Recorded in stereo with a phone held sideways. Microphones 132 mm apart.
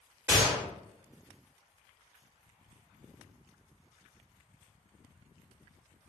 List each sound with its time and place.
0.3 s a gunshot: 15° right (ahead or behind), 2 m